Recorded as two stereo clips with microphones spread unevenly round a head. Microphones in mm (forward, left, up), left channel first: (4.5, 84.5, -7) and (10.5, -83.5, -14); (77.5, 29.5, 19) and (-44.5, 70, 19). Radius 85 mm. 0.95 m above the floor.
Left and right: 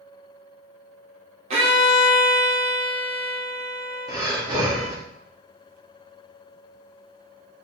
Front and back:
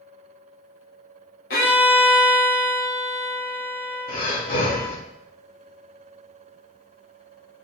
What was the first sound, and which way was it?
A violin, 35° right.